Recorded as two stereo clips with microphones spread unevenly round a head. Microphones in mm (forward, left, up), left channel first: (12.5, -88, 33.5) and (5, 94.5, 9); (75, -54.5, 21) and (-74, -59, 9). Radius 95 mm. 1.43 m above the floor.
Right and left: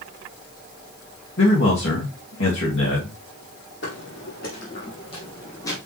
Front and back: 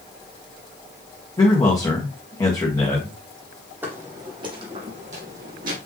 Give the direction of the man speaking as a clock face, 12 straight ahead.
2 o'clock.